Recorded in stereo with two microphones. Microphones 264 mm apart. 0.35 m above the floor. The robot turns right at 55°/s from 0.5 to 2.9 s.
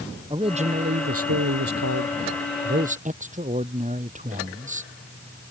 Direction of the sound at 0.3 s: 160° right.